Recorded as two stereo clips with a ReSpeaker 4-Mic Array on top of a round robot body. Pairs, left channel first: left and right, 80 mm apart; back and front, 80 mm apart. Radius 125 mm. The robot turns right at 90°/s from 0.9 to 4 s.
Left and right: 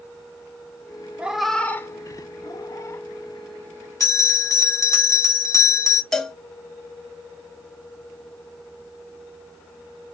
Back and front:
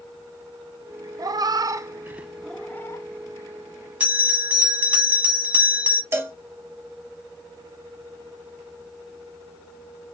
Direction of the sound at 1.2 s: 20° right.